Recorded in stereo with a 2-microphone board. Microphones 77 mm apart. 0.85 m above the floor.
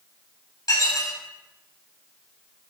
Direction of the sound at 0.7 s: 50° left (ahead or behind).